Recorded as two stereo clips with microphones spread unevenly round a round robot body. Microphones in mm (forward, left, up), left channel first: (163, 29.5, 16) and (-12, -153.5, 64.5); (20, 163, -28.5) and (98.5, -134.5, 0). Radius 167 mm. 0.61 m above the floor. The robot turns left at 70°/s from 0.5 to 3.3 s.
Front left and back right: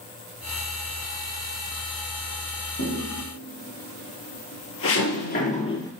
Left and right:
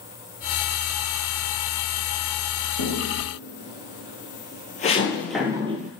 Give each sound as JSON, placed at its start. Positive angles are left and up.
{"t": 2.8, "sound": "footsteps", "azimuth_deg": 115, "distance_m": 1.5}